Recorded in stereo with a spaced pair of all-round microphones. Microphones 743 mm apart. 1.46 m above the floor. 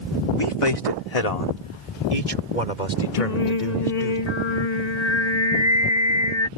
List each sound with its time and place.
0.3 s a man speaking: 40° left (ahead or behind); by 4.2 s 85° left
3.2 s singing: 60° left (ahead or behind)